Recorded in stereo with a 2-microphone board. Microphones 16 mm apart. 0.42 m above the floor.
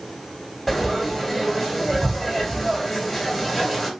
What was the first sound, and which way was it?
Frying, 10° left (ahead or behind).